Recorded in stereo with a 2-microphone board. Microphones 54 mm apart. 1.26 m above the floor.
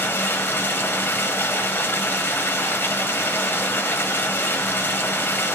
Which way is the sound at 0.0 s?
40° left (ahead or behind).